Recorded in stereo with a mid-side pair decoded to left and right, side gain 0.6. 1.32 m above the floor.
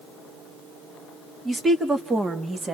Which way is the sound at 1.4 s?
15° right.